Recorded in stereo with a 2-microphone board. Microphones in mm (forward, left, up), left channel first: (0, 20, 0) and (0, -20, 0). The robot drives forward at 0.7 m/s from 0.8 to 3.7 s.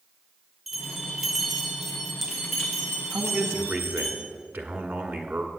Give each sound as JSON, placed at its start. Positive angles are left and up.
{"t": 0.7, "sound": "a bell", "side_deg": 0, "distance_m": 0.9}
{"t": 3.1, "sound": "a man speaking", "side_deg": -50, "distance_m": 1.3}